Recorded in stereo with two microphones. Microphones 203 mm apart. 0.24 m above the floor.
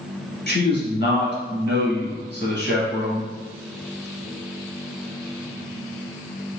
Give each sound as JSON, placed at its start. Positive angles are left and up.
{"t": 0.5, "sound": "a man speaking", "side_deg": 50, "distance_m": 1.4}